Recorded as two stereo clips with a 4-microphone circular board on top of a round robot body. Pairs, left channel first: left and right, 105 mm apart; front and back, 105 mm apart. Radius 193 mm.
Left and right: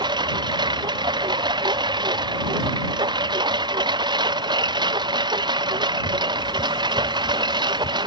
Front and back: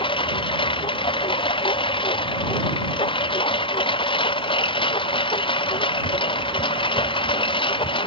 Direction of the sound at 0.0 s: 40° right.